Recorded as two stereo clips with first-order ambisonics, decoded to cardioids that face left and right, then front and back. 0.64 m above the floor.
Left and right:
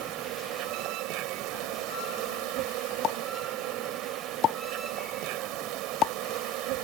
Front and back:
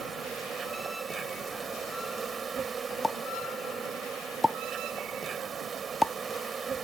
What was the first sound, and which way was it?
An insect, 115° right.